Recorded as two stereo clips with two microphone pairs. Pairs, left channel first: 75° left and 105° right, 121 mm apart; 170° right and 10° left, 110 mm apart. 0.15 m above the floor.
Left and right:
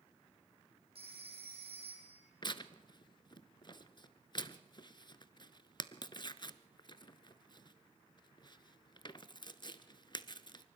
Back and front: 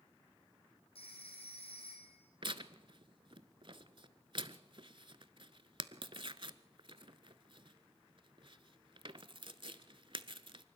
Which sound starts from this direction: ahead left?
Tearing paper, at 2.4 s.